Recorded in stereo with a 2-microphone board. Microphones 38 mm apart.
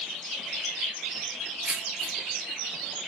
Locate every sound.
1.6 s keys jangling: 55° right (ahead or behind), 1.5 m